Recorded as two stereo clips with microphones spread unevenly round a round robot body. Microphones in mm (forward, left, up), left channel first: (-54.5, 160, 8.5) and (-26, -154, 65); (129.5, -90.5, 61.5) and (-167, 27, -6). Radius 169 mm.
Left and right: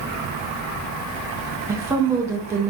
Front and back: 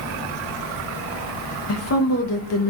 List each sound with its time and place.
1.7 s a woman speaking: 5° left, 0.6 m